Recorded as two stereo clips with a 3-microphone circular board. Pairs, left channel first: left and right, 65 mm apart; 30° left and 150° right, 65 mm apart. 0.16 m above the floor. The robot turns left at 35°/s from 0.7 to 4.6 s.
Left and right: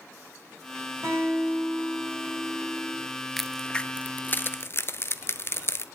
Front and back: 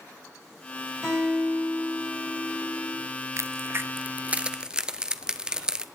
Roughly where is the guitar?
Ahead right.